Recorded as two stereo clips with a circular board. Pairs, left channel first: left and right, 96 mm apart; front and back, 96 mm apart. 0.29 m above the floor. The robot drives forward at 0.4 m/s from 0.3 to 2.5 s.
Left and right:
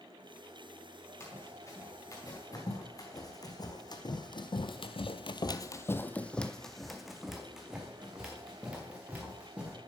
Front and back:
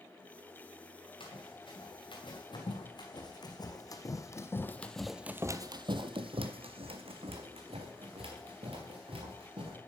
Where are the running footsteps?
25° left, 3 m; by 9.8 s 165° right, 2.5 m.